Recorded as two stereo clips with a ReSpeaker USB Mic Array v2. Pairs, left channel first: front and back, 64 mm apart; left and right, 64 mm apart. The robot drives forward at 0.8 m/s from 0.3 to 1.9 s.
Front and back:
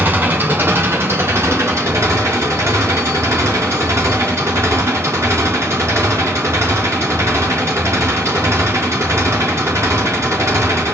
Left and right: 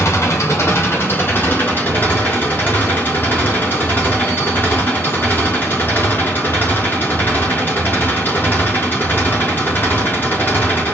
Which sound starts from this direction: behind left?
An engine running, at 0.0 s.